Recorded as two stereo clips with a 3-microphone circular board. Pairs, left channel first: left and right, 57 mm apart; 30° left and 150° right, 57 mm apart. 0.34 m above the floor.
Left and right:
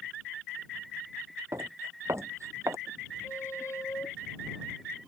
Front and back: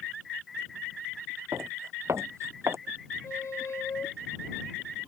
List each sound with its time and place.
1.5 s footsteps: 120° right
3.2 s a squeak: 60° left